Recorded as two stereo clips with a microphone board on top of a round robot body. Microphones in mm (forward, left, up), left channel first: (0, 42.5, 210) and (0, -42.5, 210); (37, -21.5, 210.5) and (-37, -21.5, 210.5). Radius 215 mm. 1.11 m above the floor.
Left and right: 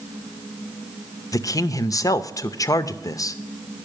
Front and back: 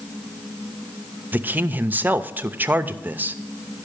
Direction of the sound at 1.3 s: 120° left.